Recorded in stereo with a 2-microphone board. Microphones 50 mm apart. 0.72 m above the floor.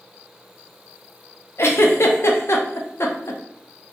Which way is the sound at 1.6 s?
60° left (ahead or behind).